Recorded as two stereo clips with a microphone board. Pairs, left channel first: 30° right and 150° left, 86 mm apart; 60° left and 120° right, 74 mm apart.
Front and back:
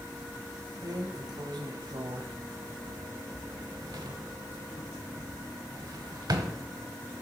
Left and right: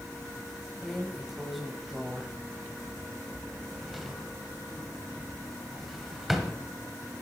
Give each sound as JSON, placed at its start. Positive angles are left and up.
{"t": 0.8, "sound": "a drawer", "azimuth_deg": 155, "distance_m": 0.8}